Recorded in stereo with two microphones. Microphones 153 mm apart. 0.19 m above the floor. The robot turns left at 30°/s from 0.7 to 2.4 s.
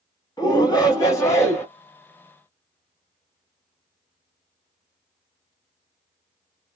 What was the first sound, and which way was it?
A shout, 25° left (ahead or behind).